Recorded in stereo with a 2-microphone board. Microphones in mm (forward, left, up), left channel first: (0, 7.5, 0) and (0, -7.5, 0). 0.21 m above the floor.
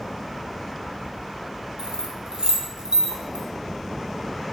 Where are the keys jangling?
70° right (ahead or behind), 2 m.